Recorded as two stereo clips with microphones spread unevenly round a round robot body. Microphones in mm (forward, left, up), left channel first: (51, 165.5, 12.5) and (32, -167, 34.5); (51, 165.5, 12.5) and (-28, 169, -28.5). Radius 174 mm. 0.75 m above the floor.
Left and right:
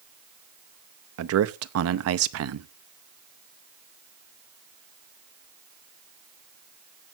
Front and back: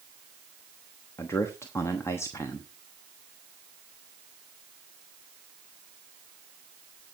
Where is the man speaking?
90° right, 0.8 m.